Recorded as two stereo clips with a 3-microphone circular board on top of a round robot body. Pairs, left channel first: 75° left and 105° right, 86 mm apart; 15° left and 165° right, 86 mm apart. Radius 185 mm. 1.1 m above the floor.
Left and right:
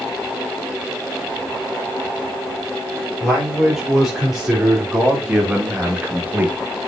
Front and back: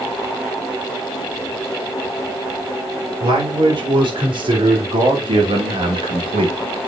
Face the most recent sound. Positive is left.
turn(degrees=-170)